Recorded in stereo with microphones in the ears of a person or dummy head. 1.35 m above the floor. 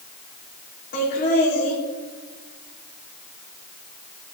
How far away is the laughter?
About 4 m.